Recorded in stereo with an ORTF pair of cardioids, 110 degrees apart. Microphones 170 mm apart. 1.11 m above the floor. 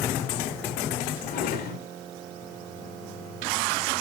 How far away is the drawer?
About 2.5 m.